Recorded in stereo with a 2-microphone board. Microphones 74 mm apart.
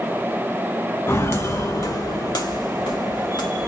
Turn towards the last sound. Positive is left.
turn(degrees=85)